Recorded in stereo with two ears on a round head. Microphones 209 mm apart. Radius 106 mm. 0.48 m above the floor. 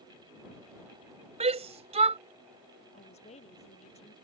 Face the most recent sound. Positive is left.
turn(degrees=30)  # may be behind; listen again after turning